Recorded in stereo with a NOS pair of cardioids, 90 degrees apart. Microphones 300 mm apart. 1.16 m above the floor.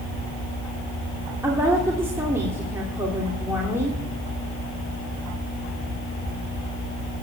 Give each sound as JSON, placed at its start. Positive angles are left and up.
{"t": 1.4, "sound": "a woman speaking", "azimuth_deg": -10, "distance_m": 2.5}